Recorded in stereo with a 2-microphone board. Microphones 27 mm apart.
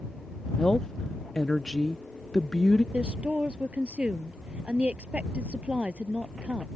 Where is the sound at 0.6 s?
25° left (ahead or behind).